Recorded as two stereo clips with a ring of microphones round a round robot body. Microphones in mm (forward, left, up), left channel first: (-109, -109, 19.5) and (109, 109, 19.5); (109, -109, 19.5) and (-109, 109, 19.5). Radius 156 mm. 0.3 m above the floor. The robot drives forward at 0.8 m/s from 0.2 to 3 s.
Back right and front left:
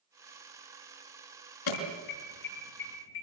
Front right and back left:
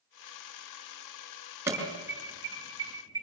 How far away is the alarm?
About 6 m.